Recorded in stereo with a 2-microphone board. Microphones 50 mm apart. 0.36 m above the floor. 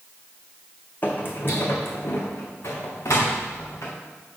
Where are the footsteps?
40° left (ahead or behind), 1.0 m; by 3.9 s 70° left (ahead or behind), 2.5 m.